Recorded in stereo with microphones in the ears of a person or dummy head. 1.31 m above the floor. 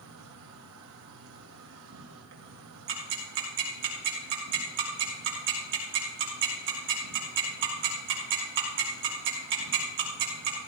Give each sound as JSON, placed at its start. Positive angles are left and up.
{"t": 0.0, "sound": "an insect", "side_deg": -75, "distance_m": 2.0}
{"t": 2.9, "sound": "ticking", "side_deg": -65, "distance_m": 2.5}